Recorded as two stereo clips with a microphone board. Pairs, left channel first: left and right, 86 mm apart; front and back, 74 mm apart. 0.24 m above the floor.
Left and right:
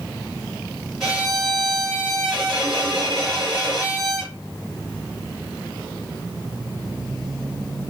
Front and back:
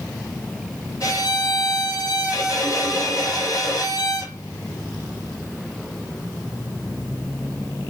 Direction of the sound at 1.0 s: Straight ahead.